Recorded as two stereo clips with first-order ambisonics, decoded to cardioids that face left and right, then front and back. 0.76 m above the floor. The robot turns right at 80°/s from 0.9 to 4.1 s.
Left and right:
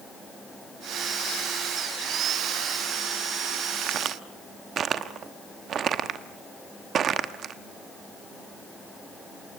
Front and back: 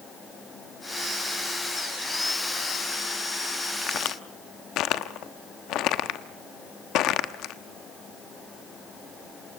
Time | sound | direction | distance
3.8 | a crack | 60° right | 1.0 m